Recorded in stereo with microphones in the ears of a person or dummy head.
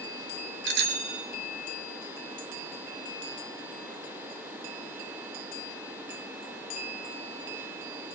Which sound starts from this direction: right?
A bicycle bell, at 0.7 s.